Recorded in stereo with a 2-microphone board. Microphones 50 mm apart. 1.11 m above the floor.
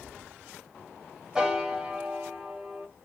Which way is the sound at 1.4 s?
15° right (ahead or behind).